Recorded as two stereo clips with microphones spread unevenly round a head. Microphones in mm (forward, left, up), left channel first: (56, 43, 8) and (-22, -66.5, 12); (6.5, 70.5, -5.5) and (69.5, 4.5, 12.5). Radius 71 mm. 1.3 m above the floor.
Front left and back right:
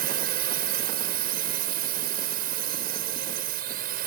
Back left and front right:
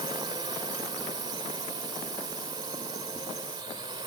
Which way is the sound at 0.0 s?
110° right.